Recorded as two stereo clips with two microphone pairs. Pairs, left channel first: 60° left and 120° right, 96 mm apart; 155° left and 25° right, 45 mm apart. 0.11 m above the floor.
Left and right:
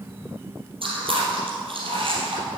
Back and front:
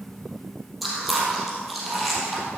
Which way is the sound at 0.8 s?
115° right.